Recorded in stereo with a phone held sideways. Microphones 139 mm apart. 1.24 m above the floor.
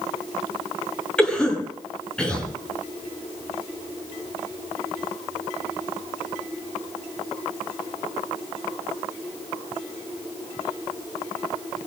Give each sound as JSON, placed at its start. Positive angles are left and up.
{"t": 1.2, "sound": "a cough", "side_deg": 5, "distance_m": 7.0}